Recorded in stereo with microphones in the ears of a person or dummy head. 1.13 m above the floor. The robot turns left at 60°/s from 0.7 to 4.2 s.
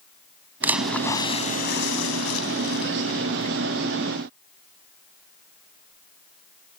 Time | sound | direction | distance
0.6 | a splash | 170° right | ?